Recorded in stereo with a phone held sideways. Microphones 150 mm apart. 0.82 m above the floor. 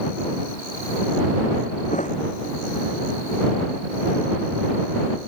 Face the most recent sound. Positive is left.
turn(degrees=55)  # may be behind; listen again after turning